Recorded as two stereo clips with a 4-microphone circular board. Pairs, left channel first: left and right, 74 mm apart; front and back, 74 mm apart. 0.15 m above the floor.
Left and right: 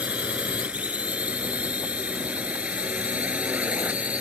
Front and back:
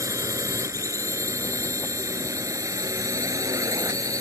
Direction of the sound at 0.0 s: 155° right.